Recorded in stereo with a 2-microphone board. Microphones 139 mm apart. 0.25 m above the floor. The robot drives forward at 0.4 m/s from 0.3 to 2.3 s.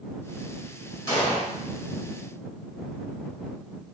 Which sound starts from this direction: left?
An explosion, at 1.1 s.